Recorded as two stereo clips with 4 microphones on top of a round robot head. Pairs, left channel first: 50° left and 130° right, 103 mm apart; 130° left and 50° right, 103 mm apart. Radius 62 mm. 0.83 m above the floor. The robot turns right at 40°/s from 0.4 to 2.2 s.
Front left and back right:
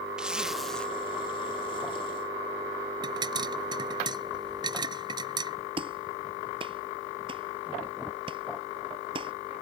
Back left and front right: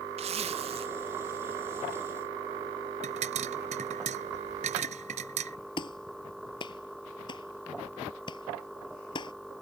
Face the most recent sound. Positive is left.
turn(degrees=-175)